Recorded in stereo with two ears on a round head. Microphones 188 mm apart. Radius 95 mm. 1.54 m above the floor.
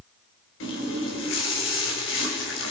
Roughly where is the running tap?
Left.